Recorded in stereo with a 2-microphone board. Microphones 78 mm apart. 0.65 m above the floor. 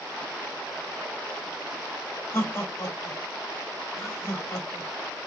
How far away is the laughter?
About 1.7 m.